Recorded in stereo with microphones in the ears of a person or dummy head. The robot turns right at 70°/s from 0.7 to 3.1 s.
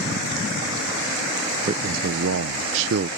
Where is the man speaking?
150° right; by 3.1 s 50° right.